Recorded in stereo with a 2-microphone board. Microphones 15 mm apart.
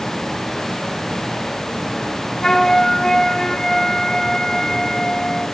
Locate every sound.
2.4 s a flute: 45° left (ahead or behind), 1.7 m